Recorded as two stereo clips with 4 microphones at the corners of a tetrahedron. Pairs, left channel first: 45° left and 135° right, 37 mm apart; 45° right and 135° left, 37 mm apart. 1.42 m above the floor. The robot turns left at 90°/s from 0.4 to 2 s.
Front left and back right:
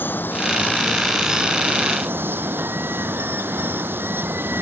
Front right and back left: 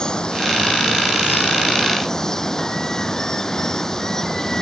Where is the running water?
25° left; by 4.6 s 120° right.